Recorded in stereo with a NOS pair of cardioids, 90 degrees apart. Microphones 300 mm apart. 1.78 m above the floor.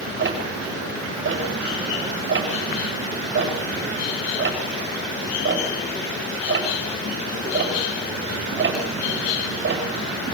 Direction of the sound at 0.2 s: 40° right.